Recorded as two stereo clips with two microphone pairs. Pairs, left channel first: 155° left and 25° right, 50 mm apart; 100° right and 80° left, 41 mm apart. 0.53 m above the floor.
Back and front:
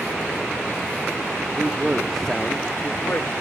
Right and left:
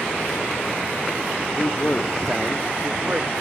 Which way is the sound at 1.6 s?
70° right.